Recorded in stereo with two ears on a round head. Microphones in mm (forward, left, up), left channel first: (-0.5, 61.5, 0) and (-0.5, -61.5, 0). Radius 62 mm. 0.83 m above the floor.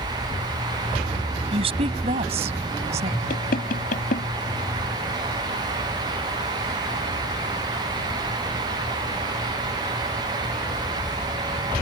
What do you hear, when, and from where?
1.5 s a woman speaking: 40° right (ahead or behind); by 3.2 s 50° right (ahead or behind)
3.3 s knocking: 65° left (ahead or behind)